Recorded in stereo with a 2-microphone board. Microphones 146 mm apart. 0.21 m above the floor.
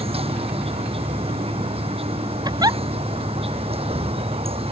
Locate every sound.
0.0 s an insect: 40° right (ahead or behind)
2.5 s a giggle: 25° right (ahead or behind)